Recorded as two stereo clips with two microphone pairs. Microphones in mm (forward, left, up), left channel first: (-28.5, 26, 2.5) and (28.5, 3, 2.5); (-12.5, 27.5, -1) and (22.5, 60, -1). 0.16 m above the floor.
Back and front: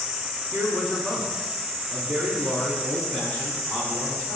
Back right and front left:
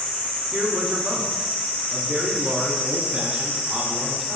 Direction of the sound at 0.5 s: 85° left.